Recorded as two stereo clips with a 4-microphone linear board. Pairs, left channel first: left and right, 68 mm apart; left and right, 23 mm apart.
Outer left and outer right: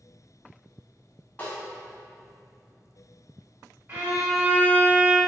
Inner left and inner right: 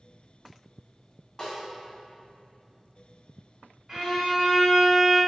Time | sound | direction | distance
1.4 | a snare drum | 25° left (ahead or behind) | 1.5 m
3.9 | a violin | 30° right (ahead or behind) | 1.5 m